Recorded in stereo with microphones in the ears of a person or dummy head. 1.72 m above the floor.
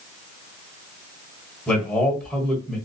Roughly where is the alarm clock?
I don't hear an alarm clock.